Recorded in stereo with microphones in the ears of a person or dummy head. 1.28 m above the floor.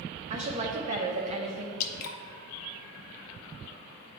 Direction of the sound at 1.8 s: 55° left (ahead or behind).